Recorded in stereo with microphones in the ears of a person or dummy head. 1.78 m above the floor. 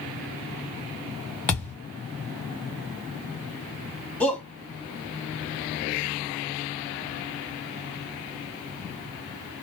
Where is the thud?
5° left (ahead or behind), 1.2 m.